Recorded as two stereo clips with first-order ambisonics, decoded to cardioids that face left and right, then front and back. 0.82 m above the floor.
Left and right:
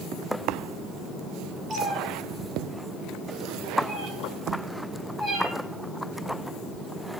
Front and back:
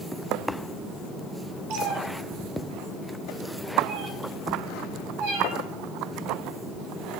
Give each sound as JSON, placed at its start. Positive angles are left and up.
{"t": 1.7, "sound": "a cat meowing", "azimuth_deg": -155, "distance_m": 3.0}